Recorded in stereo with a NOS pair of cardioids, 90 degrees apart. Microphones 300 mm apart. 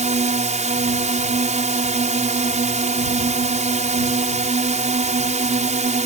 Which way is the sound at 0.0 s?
25° right.